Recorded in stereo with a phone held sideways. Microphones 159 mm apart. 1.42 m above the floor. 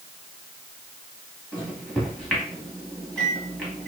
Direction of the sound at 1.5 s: Centre (ahead or behind).